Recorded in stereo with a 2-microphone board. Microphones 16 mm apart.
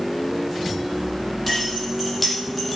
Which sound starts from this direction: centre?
Keys jangling, at 1.5 s.